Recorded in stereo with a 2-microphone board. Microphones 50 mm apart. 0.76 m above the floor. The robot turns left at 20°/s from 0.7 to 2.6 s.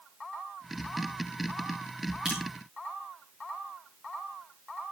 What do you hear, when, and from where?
2.2 s dripping: 20° right (ahead or behind), 5.5 m; by 2.4 s 15° right (ahead or behind), 5.5 m